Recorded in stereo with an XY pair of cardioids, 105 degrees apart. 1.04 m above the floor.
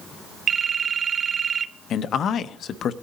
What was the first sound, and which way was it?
A phone ringing, 45° right.